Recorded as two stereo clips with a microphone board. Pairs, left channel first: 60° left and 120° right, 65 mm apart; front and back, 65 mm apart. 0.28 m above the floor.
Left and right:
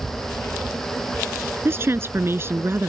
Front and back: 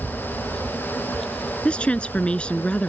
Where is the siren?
I don't hear a siren.